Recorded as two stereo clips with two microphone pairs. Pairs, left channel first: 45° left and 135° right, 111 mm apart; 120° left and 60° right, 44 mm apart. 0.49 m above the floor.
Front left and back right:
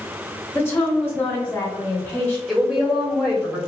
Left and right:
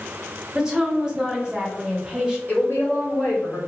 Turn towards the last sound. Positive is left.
turn(degrees=135)